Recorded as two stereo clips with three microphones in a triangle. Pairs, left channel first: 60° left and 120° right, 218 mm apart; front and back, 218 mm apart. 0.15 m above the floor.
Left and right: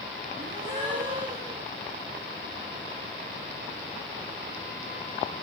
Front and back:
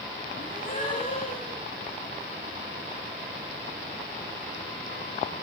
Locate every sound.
0.3 s a gasp: 50° right, 7 m